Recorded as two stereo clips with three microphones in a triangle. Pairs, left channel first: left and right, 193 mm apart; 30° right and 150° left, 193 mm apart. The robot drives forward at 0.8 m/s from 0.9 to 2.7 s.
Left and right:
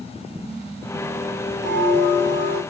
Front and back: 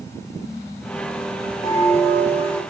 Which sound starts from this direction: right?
A bell, at 1.6 s.